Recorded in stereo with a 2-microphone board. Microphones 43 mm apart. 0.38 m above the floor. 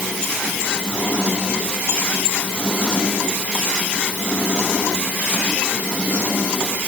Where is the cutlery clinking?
I don't hear cutlery clinking.